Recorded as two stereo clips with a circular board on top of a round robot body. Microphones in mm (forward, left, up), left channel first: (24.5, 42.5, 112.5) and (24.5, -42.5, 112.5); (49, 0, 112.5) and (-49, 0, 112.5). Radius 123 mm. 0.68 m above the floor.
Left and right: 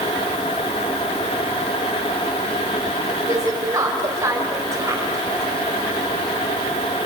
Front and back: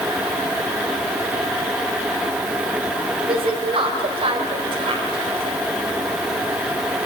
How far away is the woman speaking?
About 4 m.